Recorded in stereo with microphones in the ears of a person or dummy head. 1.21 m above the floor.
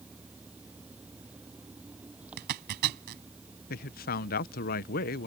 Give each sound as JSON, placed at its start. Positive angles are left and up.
{"t": 0.0, "sound": "an engine running", "side_deg": -10}
{"t": 2.4, "sound": "a zipper", "side_deg": -55}
{"t": 3.7, "sound": "a man speaking", "side_deg": 50}